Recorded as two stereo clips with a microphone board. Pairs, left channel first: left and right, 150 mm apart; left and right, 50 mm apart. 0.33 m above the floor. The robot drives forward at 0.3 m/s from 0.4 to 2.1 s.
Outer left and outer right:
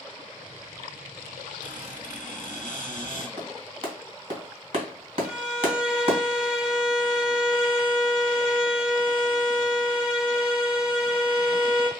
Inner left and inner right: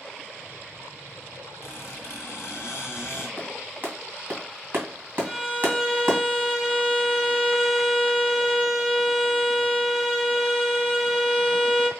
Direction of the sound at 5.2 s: 5° right (ahead or behind).